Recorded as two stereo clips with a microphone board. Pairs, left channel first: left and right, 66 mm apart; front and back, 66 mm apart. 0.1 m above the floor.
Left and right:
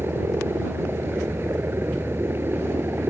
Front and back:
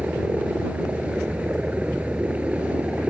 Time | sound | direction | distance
0.0 | a helicopter | 120° right | ?